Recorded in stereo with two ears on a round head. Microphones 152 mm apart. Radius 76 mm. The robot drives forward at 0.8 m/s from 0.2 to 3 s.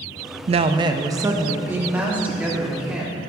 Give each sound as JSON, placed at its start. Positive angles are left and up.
{"t": 0.5, "sound": "a woman speaking", "side_deg": -40, "distance_m": 0.5}